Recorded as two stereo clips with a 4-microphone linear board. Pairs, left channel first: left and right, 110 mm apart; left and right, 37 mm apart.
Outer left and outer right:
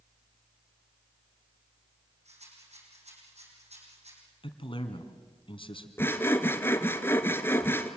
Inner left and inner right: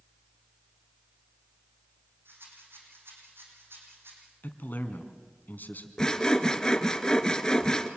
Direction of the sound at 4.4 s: 50° left (ahead or behind).